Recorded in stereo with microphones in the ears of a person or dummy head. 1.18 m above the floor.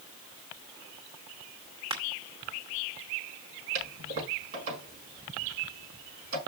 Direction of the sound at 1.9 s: 35° right (ahead or behind).